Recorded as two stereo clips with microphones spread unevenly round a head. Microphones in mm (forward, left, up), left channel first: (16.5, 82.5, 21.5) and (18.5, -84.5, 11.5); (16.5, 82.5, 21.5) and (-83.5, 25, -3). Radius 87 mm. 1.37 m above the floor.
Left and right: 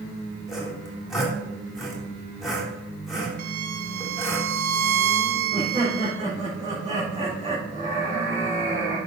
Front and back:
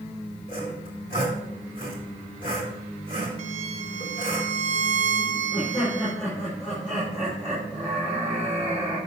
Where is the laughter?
40° right, 4.5 m.